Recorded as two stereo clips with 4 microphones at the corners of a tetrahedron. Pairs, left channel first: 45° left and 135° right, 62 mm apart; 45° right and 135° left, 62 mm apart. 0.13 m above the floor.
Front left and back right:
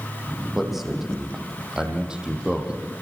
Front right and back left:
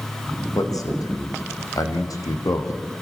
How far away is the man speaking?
About 6.5 m.